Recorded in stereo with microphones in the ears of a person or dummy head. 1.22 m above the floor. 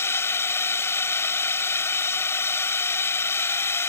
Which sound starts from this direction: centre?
A drone, at 0.0 s.